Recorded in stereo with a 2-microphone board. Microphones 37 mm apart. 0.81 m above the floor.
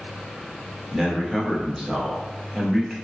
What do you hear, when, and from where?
0.9 s a man speaking: 10° right (ahead or behind), 0.8 m